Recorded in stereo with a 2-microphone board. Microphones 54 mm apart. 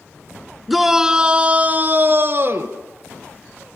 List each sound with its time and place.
0.7 s a shout: centre (ahead or behind), 1.5 m; by 2.8 s 55° right (ahead or behind), 2 m